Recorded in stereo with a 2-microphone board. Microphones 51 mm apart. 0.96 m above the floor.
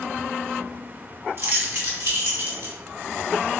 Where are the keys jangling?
50° right (ahead or behind), 1.2 m; by 2.8 s 65° right (ahead or behind), 1.8 m.